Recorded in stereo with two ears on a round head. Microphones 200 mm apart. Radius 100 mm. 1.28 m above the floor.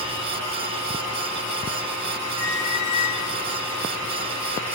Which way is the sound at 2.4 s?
70° left (ahead or behind).